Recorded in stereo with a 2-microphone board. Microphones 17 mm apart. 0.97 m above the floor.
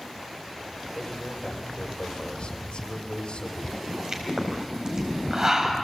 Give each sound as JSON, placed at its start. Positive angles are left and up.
{"t": 0.9, "sound": "a man speaking", "side_deg": 85, "distance_m": 3.5}
{"t": 3.7, "sound": "a pop", "side_deg": -40, "distance_m": 4.0}